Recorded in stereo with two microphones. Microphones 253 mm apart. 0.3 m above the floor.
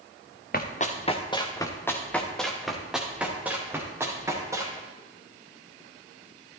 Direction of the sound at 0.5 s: 35° left (ahead or behind).